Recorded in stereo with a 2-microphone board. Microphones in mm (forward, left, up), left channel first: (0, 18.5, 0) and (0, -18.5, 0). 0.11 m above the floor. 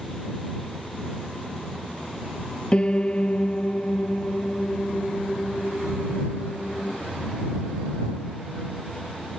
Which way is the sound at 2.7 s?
30° left (ahead or behind).